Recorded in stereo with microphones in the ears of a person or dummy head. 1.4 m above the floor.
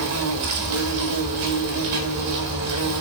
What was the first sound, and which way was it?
An insect, 75° right (ahead or behind).